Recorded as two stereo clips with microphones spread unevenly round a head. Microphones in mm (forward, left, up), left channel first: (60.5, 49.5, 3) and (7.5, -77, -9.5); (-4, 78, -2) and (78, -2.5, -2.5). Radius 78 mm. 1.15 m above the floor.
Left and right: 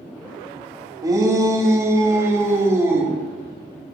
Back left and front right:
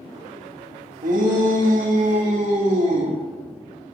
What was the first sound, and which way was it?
A shout, 50° right.